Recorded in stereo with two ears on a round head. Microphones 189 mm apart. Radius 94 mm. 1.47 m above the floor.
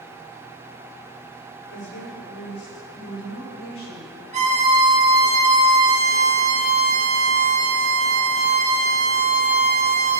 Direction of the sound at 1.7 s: 75° left (ahead or behind).